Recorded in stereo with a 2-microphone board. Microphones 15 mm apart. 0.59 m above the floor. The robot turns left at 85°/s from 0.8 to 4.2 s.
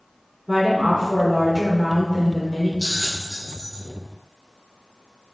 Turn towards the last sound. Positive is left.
turn(degrees=180)